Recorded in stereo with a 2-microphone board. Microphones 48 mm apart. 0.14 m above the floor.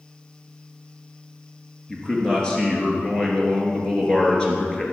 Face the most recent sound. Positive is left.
turn(degrees=20)  # may be behind; listen again after turning